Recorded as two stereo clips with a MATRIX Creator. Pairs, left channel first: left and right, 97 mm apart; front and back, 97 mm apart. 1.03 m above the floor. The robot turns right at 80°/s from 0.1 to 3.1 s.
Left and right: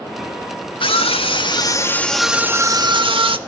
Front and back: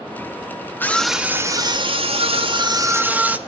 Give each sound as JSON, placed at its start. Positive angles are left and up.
{"t": 0.8, "sound": "a scream", "azimuth_deg": 70, "distance_m": 1.9}